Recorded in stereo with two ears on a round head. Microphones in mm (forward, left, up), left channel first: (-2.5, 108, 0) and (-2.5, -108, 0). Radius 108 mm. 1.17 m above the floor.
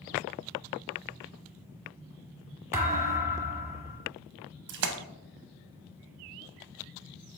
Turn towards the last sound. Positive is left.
turn(degrees=-50)  # may be behind; listen again after turning